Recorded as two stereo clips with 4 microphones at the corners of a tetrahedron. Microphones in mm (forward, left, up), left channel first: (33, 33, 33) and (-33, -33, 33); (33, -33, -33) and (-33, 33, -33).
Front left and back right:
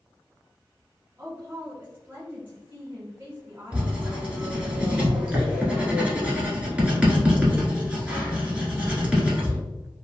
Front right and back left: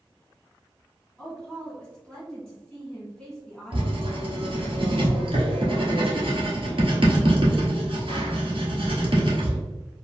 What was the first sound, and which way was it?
A woman speaking, 115° right.